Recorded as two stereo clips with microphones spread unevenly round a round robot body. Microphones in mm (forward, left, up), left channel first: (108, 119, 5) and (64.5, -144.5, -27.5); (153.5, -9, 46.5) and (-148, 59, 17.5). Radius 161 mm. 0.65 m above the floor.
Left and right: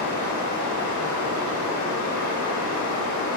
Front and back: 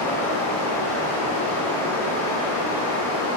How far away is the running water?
About 0.8 m.